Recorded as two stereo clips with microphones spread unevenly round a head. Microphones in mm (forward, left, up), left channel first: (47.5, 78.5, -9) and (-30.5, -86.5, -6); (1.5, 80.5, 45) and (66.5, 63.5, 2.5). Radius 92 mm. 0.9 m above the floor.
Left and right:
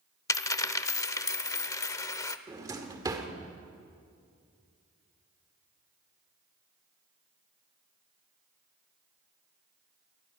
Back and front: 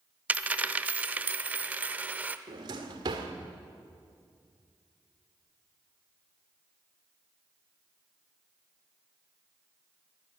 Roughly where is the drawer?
Ahead right.